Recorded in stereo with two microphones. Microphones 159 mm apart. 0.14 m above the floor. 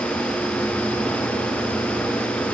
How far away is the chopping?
I don't hear chopping.